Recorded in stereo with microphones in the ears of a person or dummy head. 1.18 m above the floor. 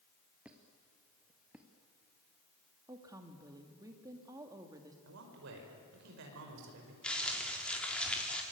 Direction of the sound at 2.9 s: 15° right (ahead or behind).